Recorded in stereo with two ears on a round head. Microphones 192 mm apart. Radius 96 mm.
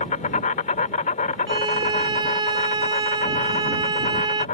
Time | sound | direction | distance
0.0 | an insect | 35° left (ahead or behind) | ?
1.5 | a violin | 25° right (ahead or behind) | ?